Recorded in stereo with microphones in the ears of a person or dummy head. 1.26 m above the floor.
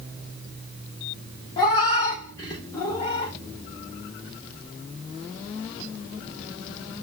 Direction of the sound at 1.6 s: 15° left (ahead or behind).